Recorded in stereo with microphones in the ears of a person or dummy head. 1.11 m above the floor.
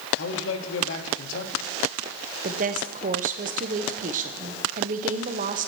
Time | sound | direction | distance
0.2 | a man speaking | 70° left (ahead or behind) | 1.5 m
2.4 | a woman speaking | 40° right (ahead or behind) | 0.9 m